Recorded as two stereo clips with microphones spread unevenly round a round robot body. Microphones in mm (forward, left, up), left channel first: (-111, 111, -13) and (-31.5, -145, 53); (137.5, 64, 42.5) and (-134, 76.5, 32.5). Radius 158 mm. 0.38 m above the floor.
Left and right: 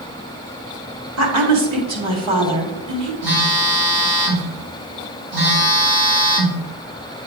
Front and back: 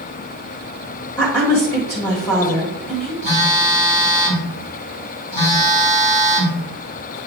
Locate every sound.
1.2 s a woman speaking: 85° right, 1.7 m
3.2 s a phone buzzing: 40° right, 2 m